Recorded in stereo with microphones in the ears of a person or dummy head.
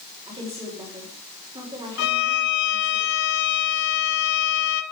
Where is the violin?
65° left (ahead or behind), 1.5 m.